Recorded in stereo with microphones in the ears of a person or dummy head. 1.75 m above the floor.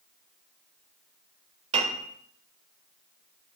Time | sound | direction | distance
1.7 | a piano | 35° right (ahead or behind) | 1.3 m